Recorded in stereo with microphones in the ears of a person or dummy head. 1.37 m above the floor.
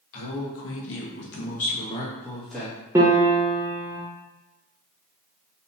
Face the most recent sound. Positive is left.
turn(degrees=-15)  # may be behind; listen again after turning